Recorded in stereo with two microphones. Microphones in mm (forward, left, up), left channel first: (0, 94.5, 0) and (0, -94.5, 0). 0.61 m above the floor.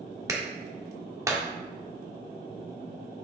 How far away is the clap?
About 1.1 m.